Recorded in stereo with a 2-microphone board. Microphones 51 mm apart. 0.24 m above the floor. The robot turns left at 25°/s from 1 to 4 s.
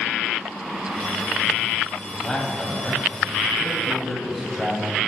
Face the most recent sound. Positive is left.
turn(degrees=0)  # may be behind; listen again after turning